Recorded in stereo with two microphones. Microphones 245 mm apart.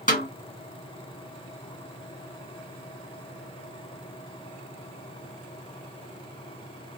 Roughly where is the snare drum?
Left.